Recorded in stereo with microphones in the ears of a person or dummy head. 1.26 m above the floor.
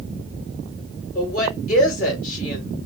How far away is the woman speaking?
About 2.5 m.